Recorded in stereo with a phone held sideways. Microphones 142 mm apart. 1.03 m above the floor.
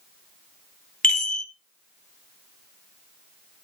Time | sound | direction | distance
1.0 | a chime | 65° left (ahead or behind) | 1.6 m